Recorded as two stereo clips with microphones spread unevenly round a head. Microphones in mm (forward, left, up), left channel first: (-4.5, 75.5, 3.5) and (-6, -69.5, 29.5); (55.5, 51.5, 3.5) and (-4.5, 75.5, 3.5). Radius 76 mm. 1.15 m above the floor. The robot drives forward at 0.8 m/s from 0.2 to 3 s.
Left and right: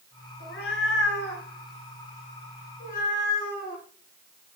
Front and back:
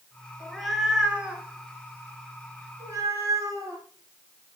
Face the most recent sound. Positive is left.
turn(degrees=125)